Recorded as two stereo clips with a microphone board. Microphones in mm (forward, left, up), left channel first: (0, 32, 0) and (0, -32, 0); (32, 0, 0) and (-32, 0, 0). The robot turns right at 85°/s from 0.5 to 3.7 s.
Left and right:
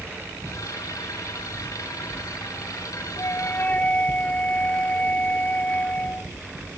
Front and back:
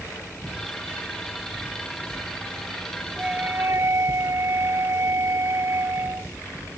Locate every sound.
3.2 s a flute: 105° left; by 6.3 s 150° left